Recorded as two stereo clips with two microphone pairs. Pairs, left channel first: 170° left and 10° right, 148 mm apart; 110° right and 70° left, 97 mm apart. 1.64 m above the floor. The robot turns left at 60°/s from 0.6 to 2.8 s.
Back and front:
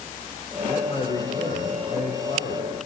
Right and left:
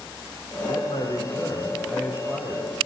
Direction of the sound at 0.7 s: 125° right.